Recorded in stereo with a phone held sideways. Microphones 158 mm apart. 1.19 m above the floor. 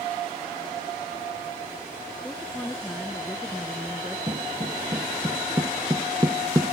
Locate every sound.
2.2 s a woman speaking: 5° left (ahead or behind)
4.3 s footsteps: 30° right (ahead or behind); by 6.7 s 25° right (ahead or behind)